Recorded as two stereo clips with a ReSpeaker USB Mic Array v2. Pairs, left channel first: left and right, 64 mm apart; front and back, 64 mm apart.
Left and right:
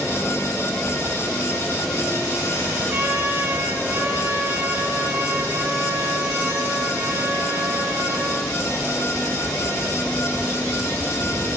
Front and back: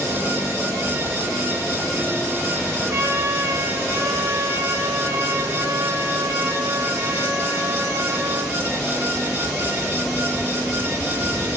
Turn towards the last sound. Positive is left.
turn(degrees=-140)